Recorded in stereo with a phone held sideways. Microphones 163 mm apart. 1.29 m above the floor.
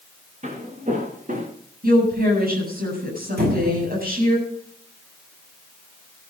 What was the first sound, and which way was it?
Footsteps, 45° right (ahead or behind).